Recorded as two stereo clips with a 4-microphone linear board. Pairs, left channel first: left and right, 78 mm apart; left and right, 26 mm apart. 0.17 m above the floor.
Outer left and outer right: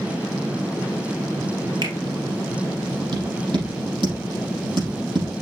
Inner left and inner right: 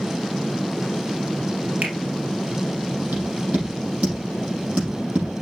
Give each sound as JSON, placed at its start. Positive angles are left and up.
{"t": 1.8, "sound": "a finger snap", "side_deg": -70, "distance_m": 2.5}
{"t": 3.1, "sound": "tapping", "side_deg": -75, "distance_m": 5.5}